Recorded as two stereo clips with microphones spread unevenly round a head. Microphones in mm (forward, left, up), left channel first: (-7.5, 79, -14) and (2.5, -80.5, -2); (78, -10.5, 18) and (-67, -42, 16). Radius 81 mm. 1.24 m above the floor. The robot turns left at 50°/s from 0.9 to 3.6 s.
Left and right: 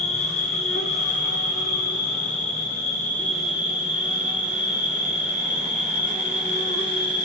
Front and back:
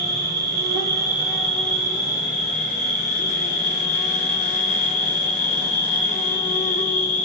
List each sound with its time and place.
0.0 s an insect: 130° left, 1.3 m; by 7.2 s 5° right, 1.3 m